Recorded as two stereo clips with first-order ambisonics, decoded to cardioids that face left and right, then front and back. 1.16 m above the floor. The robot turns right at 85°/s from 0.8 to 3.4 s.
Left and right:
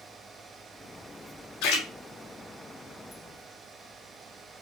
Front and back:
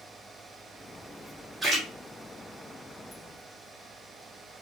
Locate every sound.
1.6 s a splash: 105° left, 1.4 m; by 1.9 s 130° left, 1.4 m